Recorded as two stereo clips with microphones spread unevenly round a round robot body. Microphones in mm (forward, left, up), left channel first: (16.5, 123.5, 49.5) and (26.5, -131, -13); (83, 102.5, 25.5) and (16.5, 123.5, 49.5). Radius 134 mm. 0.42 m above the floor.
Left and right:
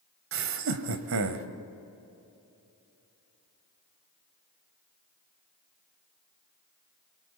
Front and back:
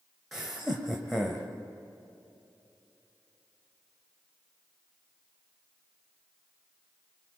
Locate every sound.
0.3 s laughter: 100° right, 1.8 m